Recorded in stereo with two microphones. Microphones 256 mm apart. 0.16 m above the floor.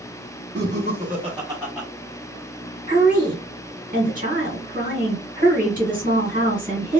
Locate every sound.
0.6 s laughter: 45° right (ahead or behind), 1.3 m; by 1.9 s 5° left (ahead or behind), 1.0 m
2.9 s a woman speaking: 35° right (ahead or behind), 1.7 m